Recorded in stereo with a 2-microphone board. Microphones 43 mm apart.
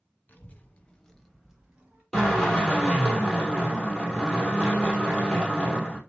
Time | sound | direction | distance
0.3 | a child speaking | 45° left (ahead or behind) | 0.9 m
2.1 | a drill | 5° left (ahead or behind) | 2.5 m